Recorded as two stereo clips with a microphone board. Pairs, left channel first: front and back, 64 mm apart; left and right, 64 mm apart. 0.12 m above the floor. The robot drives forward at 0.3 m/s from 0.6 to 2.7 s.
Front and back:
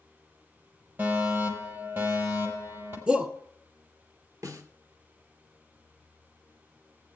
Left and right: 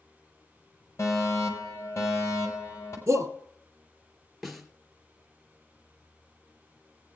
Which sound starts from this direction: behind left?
A fire alarm, at 1.0 s.